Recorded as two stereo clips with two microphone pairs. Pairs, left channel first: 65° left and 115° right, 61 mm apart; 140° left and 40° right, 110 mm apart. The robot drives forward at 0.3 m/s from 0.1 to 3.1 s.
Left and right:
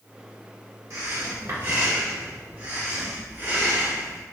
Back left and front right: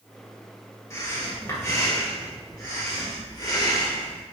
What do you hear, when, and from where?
0.9 s breathing: 155° right, 0.9 m; by 4.2 s 165° right, 1.5 m